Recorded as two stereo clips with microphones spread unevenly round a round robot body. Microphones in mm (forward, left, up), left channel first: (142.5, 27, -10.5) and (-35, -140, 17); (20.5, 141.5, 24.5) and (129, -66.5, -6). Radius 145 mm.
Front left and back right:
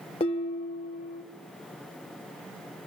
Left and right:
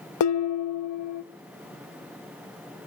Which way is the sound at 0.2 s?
115° left.